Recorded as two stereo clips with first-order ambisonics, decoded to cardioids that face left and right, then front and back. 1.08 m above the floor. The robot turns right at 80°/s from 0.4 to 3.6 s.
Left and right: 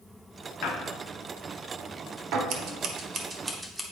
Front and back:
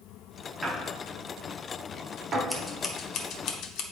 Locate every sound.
0.6 s a squeak: 100° left, 0.8 m; by 2.4 s 115° right, 0.8 m
2.5 s scissors: 95° right, 0.9 m; by 3.8 s 5° right, 0.9 m